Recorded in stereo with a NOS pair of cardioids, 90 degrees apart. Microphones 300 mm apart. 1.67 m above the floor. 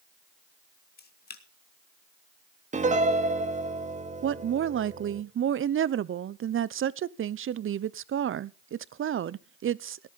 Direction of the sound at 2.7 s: 25° right.